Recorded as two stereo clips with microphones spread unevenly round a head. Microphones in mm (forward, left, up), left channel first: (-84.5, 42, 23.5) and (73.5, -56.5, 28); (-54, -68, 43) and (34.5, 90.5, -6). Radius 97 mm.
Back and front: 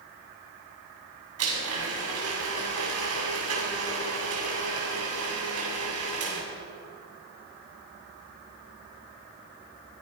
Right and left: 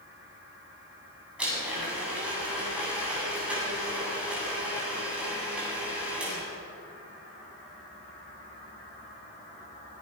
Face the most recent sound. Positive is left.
turn(degrees=-25)